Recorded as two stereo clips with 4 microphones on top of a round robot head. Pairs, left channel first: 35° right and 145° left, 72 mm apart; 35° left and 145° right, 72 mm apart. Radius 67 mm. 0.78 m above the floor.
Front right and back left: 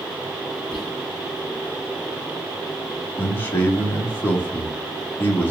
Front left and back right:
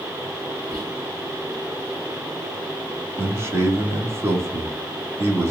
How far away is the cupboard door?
I don't hear a cupboard door.